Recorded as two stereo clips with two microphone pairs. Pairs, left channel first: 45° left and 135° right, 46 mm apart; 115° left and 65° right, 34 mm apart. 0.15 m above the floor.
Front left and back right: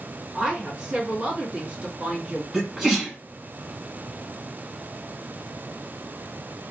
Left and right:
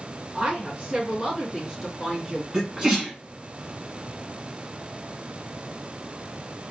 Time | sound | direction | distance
0.3 | a woman speaking | 80° right | 1.7 m
2.5 | a sneeze | 70° right | 1.2 m